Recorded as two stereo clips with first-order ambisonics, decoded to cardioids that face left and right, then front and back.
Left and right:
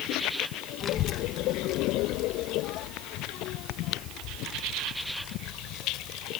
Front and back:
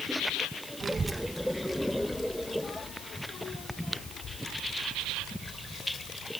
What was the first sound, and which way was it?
A child speaking, 125° left.